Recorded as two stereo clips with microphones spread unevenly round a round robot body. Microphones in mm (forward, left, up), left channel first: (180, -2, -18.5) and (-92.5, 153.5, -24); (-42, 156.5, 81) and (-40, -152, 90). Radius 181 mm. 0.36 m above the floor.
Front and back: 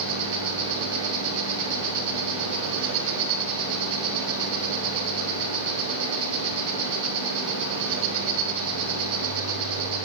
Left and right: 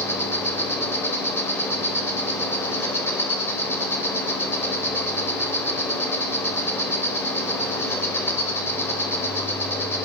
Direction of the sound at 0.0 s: 170° left.